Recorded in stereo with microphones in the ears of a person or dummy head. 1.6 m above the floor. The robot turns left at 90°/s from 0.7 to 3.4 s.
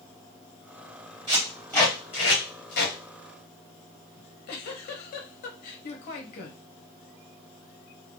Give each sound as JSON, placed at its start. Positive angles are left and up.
{"t": 1.3, "sound": "tape being pulled", "side_deg": -25, "distance_m": 1.6}
{"t": 4.2, "sound": "a giggle", "side_deg": 50, "distance_m": 0.6}